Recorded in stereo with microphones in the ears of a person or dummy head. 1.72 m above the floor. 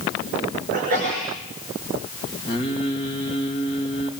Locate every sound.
0.7 s a sneeze: 45° right (ahead or behind), 5.5 m
2.5 s singing: 30° left (ahead or behind), 2.5 m